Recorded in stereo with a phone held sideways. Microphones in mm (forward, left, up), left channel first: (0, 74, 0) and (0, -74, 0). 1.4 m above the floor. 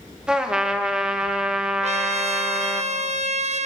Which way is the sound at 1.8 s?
50° right (ahead or behind).